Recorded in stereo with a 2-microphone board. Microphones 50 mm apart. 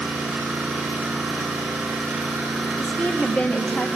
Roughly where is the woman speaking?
Left.